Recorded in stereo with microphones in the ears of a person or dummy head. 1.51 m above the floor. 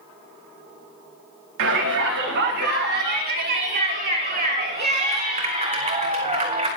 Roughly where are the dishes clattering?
I don't hear dishes clattering.